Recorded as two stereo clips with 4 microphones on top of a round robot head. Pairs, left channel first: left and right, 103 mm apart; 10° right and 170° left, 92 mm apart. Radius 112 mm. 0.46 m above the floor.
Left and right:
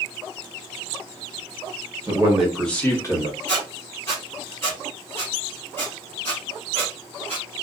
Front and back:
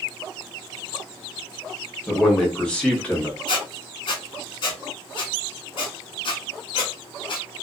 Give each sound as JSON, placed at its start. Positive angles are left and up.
{"t": 2.1, "sound": "a man speaking", "azimuth_deg": -90, "distance_m": 1.1}
{"t": 3.5, "sound": "a squeak", "azimuth_deg": 15, "distance_m": 0.6}